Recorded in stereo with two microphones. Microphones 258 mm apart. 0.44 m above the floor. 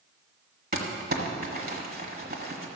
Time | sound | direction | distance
0.7 | crumpling | 40° right (ahead or behind) | 1.5 m